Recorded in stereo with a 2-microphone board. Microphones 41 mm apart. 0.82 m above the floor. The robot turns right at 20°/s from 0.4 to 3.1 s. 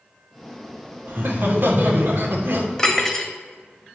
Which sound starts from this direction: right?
Laughter, at 1.1 s.